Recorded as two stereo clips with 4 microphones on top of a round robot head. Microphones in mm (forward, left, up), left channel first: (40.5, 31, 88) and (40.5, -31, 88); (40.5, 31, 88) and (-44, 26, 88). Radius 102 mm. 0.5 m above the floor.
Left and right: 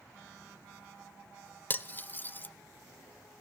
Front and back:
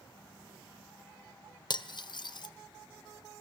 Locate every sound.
1.7 s cutlery clinking: 30° left, 1.3 m